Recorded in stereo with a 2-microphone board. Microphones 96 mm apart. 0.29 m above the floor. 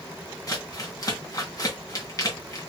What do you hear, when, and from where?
0.5 s crumpling: 35° left (ahead or behind), 2.5 m